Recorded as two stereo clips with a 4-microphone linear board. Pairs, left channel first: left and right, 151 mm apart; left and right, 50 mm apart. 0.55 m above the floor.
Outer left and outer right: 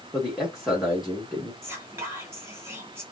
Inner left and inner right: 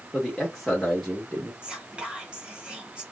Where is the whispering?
15° right (ahead or behind), 1.2 m.